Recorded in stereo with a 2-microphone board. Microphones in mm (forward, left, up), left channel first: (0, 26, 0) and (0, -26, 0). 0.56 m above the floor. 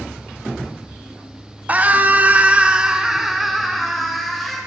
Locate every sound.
1.7 s a scream: 30° right (ahead or behind), 1.4 m; by 4.6 s 5° left (ahead or behind), 3 m